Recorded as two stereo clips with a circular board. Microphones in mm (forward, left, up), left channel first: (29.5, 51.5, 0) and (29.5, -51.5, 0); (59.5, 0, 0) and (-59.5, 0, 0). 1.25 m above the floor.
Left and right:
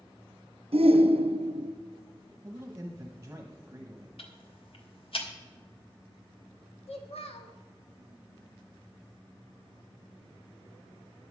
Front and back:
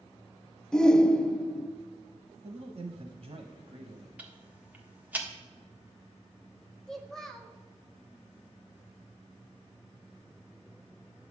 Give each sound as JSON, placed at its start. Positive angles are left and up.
{"t": 0.7, "sound": "a shout", "azimuth_deg": -85, "distance_m": 0.6}
{"t": 2.4, "sound": "a man speaking", "azimuth_deg": -155, "distance_m": 0.9}
{"t": 4.2, "sound": "ticking", "azimuth_deg": 105, "distance_m": 1.4}
{"t": 6.9, "sound": "a child speaking", "azimuth_deg": 85, "distance_m": 1.5}